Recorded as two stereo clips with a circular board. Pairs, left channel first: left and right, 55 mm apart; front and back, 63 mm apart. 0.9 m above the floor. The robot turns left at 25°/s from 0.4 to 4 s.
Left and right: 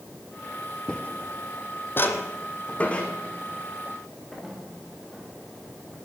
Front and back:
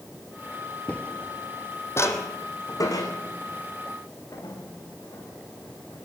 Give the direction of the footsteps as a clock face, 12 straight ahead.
11 o'clock.